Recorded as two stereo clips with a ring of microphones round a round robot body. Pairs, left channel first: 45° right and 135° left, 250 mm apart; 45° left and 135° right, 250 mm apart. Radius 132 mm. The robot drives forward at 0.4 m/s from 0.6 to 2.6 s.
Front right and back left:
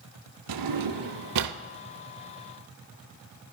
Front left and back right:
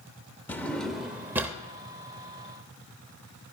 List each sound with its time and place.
0.5 s a drawer: 130° left, 0.8 m; by 1.6 s 145° left, 1.1 m